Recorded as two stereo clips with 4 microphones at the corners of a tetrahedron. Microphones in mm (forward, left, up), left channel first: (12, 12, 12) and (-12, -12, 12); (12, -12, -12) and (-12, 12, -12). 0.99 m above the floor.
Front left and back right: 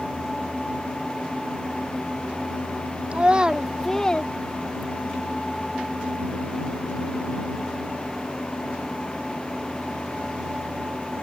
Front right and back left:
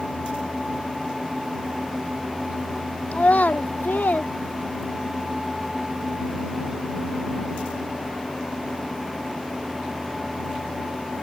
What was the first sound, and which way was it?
A child speaking, 85° right.